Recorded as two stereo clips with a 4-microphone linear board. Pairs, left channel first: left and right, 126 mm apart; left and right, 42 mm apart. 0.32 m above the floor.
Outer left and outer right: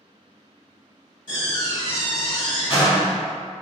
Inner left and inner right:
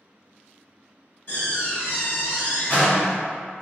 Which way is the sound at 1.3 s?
45° left (ahead or behind).